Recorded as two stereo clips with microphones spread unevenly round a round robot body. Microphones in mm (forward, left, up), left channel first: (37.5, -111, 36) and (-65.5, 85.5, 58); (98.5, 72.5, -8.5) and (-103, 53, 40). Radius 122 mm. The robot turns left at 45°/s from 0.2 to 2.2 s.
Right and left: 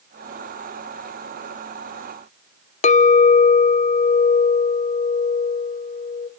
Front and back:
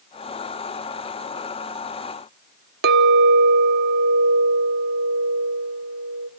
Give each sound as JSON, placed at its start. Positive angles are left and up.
{"t": 2.8, "sound": "a clink", "azimuth_deg": -120, "distance_m": 0.7}